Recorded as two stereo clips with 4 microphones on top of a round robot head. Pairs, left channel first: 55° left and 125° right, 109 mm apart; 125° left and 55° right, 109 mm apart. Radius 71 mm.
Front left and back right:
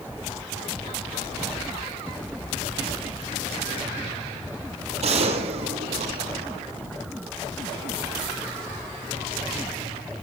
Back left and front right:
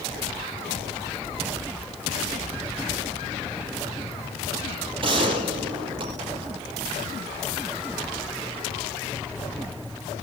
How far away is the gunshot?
About 9 m.